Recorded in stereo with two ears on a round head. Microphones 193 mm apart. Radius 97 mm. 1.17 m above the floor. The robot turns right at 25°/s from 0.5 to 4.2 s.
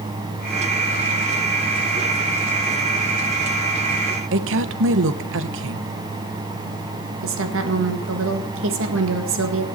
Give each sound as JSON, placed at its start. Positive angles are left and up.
{"t": 4.3, "sound": "a woman speaking", "side_deg": -65, "distance_m": 0.9}
{"t": 7.2, "sound": "a woman speaking", "side_deg": -65, "distance_m": 1.7}